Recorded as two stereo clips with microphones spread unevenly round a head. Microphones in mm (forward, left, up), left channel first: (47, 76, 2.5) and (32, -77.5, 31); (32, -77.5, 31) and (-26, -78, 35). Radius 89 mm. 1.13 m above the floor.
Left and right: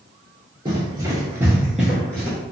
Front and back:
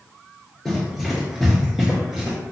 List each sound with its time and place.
0.7 s running footsteps: 85° right, 1.4 m; by 2.4 s 170° left, 1.1 m